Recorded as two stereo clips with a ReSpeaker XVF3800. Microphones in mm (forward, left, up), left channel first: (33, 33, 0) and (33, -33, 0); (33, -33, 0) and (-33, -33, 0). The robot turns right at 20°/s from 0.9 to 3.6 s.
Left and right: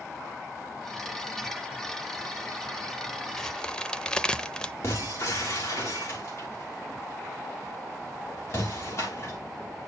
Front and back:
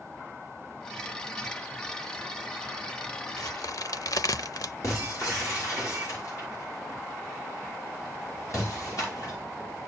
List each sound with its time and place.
3.4 s a crack: 5° left, 0.7 m; by 4.7 s 10° left, 0.7 m
4.8 s breaking glass: 40° left, 10 m